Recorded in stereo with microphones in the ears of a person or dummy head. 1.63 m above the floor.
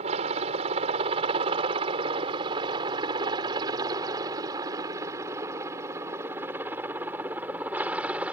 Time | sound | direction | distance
0.0 | a helicopter | 35° right (ahead or behind) | ?